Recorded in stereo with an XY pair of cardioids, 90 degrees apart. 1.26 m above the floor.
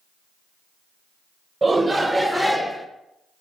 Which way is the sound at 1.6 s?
25° right.